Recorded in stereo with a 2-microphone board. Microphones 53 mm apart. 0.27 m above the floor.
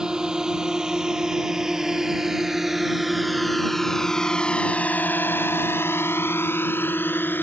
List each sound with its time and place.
0.0 s a drone: 15° right (ahead or behind); by 7.4 s 40° left (ahead or behind)